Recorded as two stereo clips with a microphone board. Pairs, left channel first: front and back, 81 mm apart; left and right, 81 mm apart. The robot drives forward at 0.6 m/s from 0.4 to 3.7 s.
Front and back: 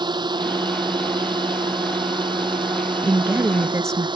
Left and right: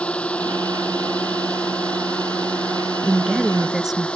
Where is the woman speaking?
170° right; by 4.1 s 175° right.